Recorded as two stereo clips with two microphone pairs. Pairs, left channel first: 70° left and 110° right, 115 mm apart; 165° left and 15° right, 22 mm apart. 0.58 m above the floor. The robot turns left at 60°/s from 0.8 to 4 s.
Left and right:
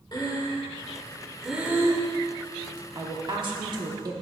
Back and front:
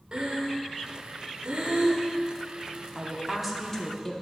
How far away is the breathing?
About 1.1 m.